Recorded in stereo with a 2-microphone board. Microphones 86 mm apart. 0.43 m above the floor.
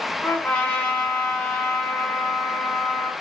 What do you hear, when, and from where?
0.2 s a trumpet: 20° left (ahead or behind), 1.7 m